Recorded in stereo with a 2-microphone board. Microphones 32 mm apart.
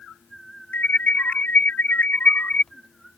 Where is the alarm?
60° left (ahead or behind).